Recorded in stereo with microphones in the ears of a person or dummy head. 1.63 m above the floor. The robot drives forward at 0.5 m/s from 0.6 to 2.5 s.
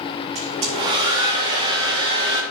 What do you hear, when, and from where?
0.3 s a hair dryer: 30° right (ahead or behind), 1.9 m; by 2.4 s 20° right (ahead or behind), 2.5 m